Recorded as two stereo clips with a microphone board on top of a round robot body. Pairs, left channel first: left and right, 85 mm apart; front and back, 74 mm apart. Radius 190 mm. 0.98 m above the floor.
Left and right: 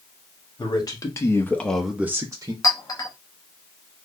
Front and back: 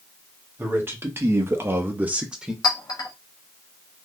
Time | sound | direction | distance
0.6 | a man speaking | 125° left | 1.5 m
2.6 | a clink | 35° left | 0.7 m